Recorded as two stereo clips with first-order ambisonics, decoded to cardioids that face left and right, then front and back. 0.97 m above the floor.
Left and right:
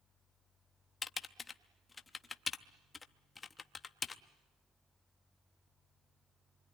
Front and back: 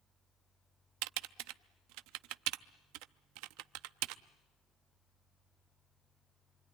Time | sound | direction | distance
1.0 | typing on a keyboard | 165° left | 0.6 m